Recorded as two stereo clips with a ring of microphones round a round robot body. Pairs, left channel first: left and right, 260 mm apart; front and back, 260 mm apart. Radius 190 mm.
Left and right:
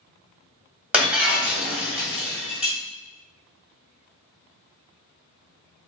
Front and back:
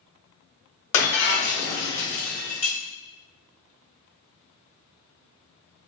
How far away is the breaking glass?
About 2.0 m.